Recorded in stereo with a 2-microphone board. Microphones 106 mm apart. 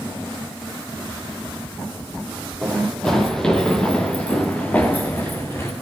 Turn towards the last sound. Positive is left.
turn(degrees=25)  # may be behind; listen again after turning